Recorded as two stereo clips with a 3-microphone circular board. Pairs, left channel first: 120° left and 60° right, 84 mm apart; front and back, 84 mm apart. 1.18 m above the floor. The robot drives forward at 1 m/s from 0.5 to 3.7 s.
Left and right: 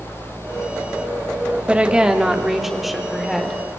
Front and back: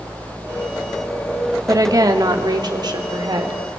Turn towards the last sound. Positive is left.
turn(degrees=-155)